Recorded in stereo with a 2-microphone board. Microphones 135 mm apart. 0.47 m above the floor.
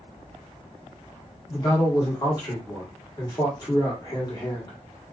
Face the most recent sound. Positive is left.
turn(degrees=30)  # may be behind; listen again after turning